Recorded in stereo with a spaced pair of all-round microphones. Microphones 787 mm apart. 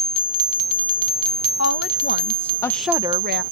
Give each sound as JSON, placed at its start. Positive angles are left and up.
{"t": 1.6, "sound": "a woman speaking", "side_deg": 20}